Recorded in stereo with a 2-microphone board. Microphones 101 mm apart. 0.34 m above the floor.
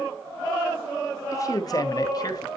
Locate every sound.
1.3 s a man speaking: 35° left (ahead or behind), 0.9 m; by 2.5 s 40° left (ahead or behind), 1.4 m